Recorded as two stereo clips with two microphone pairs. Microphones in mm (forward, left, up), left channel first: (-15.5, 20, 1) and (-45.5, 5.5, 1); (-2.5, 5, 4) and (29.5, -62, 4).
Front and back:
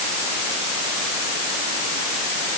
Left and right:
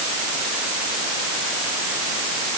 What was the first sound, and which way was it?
Only background noise.